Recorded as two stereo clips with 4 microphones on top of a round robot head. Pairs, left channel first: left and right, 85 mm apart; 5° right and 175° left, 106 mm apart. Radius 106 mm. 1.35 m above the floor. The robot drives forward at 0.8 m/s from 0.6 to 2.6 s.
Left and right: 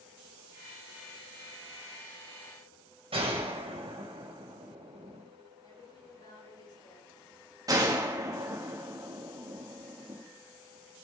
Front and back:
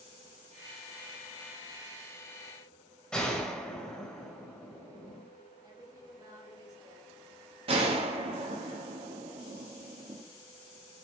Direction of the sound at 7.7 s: 140° right.